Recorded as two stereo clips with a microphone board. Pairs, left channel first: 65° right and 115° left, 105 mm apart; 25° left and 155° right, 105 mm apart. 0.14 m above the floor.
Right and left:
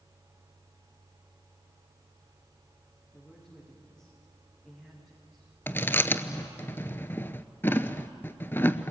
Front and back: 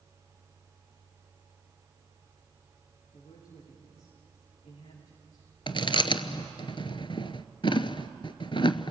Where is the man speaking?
15° left, 10 m; by 6.7 s 30° left, 12.5 m.